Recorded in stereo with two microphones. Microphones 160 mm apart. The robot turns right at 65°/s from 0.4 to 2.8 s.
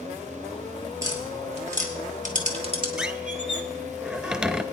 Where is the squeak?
5° right (ahead or behind), 0.6 m.